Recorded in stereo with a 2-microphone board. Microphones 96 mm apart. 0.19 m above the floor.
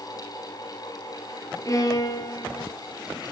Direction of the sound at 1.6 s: 40° left (ahead or behind).